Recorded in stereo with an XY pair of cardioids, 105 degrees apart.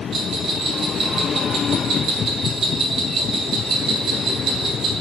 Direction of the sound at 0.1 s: 55° right.